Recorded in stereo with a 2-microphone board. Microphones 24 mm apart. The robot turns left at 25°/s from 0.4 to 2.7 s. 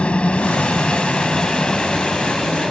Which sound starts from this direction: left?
A helicopter, at 0.0 s.